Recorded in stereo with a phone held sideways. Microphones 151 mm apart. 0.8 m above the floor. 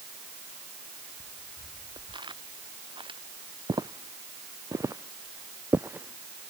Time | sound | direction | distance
1.2 | footsteps | 25° right (ahead or behind) | ?
3.7 | footsteps | 25° right (ahead or behind) | ?